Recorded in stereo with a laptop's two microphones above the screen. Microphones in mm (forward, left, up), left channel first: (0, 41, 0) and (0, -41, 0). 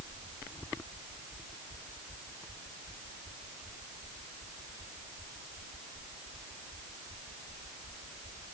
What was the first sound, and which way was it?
Only background noise.